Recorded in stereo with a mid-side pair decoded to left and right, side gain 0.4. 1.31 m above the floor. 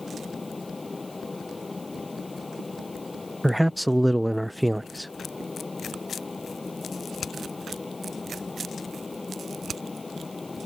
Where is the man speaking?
5° right.